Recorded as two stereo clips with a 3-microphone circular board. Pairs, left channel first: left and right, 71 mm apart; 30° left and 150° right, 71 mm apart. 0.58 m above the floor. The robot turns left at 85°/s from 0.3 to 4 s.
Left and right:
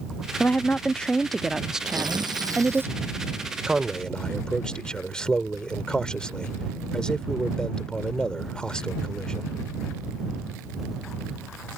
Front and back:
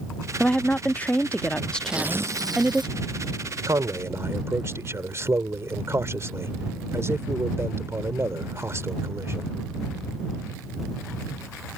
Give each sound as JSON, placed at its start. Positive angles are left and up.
{"t": 0.4, "sound": "a woman speaking", "azimuth_deg": 90}
{"t": 1.8, "sound": "tearing paper", "azimuth_deg": -65}
{"t": 3.7, "sound": "a man speaking", "azimuth_deg": -165}